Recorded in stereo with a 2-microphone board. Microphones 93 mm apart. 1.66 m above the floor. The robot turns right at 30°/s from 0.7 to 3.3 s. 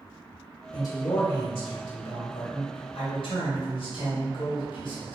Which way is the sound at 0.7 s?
35° left.